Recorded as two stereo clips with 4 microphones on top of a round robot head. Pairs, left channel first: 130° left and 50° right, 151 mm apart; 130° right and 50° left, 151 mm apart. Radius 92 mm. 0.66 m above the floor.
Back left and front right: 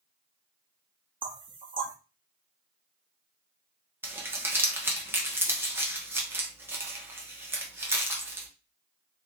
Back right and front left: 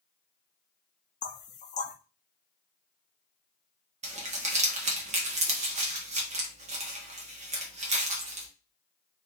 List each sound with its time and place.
1.2 s knocking: 105° right, 0.7 m
4.0 s crumpling: 20° left, 1.1 m